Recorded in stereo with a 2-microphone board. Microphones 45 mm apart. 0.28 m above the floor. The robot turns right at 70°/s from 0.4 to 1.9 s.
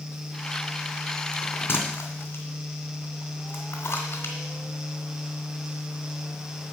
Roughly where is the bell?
Left.